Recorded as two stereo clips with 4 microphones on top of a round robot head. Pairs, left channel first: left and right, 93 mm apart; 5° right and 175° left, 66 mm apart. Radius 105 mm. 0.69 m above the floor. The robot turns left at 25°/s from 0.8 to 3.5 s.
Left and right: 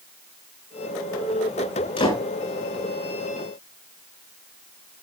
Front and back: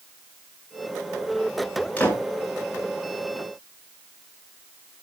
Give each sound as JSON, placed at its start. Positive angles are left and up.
{"t": 2.0, "sound": "a door slam", "azimuth_deg": 65, "distance_m": 7.5}